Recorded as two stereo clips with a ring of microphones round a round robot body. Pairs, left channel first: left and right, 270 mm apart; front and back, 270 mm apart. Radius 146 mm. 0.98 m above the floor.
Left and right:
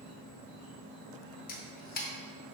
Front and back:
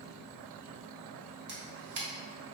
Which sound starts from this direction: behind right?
An insect, at 0.0 s.